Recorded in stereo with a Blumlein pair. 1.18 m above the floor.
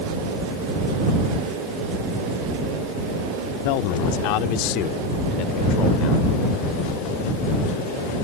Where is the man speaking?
45° left; by 6.3 s 35° left.